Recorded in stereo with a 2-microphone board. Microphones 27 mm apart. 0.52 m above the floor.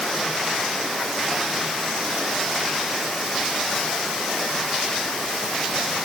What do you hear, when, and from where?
Only background noise.